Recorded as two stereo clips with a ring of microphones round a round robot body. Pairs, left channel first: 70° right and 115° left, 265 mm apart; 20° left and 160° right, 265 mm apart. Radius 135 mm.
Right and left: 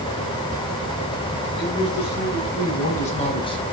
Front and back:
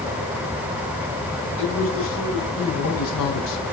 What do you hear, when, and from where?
1.6 s a man speaking: 20° right, 6.5 m; by 3.6 s 5° left, 4 m